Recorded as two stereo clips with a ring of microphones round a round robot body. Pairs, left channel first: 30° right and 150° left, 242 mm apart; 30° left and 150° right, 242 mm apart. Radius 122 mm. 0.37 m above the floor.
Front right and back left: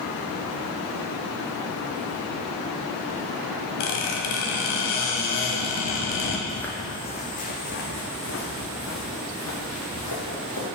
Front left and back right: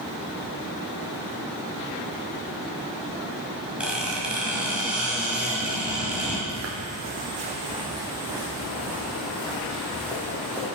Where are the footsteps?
120° right, 0.9 m; by 10.7 s 55° right, 3 m.